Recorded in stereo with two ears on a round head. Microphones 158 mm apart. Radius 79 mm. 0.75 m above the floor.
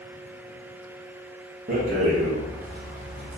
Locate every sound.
1.7 s a rattle: 40° right (ahead or behind), 0.7 m